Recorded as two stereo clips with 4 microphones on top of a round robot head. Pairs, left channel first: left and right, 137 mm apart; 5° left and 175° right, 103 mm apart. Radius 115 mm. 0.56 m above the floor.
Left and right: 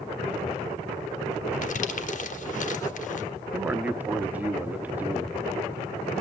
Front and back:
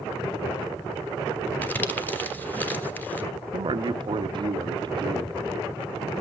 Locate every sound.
1.6 s crumpling: 80° left, 1.5 m
3.5 s a man speaking: 165° right, 0.9 m